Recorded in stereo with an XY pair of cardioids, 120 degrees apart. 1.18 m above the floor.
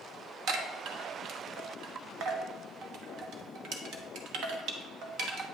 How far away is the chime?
About 1.0 m.